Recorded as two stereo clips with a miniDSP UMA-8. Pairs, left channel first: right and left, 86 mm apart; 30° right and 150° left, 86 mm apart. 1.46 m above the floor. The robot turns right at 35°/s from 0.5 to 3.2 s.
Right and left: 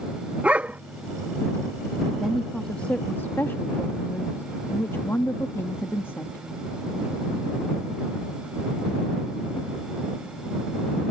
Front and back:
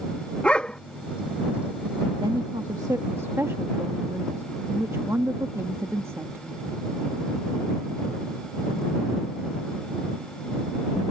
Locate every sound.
0.4 s a dog barking: 35° left; by 0.8 s 45° left
2.2 s a woman speaking: 175° left; by 6.7 s 150° right